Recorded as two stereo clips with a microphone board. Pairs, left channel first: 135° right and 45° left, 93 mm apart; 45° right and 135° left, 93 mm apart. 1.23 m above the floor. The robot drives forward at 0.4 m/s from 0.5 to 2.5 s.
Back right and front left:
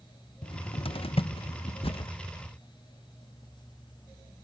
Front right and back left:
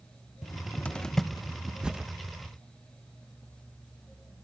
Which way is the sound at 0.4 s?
110° right.